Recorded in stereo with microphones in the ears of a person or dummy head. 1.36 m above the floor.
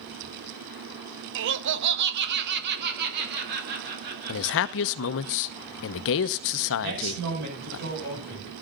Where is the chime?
I don't hear a chime.